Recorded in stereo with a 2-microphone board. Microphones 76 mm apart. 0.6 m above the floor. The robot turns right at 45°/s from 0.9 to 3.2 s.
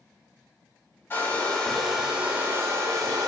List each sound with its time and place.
1.1 s a hair dryer: 145° left, 0.7 m; by 3.3 s 120° right, 0.7 m